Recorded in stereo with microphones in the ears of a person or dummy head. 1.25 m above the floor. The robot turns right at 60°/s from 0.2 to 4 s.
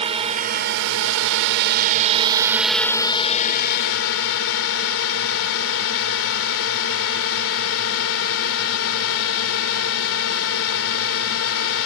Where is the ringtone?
I don't hear a ringtone.